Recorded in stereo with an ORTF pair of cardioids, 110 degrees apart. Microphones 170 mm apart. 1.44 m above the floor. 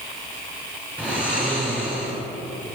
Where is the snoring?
5° right, 6 m.